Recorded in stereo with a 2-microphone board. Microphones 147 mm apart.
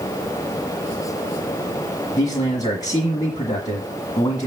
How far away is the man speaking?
About 1.6 m.